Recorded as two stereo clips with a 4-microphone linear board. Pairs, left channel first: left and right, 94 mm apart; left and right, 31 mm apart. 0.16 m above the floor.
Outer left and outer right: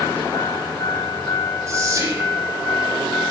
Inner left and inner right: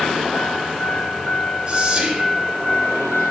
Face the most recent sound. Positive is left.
turn(degrees=-30)  # may be behind; listen again after turning